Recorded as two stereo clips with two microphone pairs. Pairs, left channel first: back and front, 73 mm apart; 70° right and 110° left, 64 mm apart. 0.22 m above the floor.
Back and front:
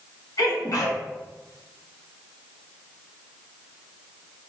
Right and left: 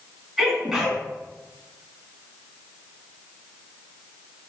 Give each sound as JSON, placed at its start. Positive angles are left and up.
{"t": 0.4, "sound": "a sneeze", "azimuth_deg": -165, "distance_m": 1.9}